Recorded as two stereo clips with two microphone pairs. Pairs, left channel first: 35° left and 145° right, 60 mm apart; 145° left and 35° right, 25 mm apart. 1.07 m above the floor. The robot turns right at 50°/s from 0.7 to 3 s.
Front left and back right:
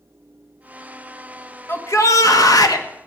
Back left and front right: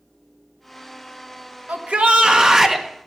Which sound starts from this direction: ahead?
A shout, at 1.7 s.